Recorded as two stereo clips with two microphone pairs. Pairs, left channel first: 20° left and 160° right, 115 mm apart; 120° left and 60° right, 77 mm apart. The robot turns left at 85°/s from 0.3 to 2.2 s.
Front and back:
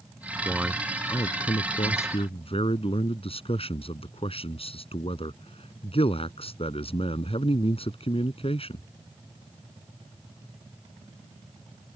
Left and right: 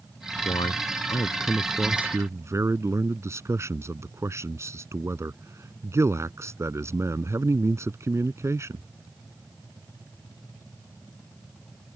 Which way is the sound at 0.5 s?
135° left.